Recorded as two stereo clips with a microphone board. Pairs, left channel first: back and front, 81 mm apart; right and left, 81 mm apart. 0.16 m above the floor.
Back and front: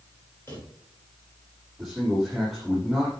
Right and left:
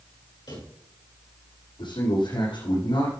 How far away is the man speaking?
About 7 m.